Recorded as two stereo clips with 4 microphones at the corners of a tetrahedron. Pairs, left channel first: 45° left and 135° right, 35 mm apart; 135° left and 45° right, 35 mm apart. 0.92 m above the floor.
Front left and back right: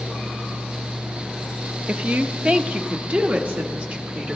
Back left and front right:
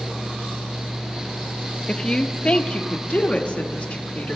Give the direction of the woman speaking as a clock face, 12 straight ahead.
6 o'clock.